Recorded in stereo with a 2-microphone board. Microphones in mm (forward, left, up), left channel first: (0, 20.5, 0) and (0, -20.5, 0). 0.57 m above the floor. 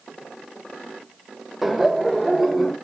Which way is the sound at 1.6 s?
5° right (ahead or behind).